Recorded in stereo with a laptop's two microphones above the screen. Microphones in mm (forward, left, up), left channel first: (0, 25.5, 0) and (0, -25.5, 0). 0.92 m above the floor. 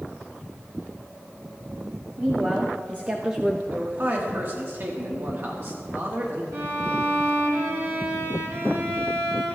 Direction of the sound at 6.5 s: 70° right (ahead or behind).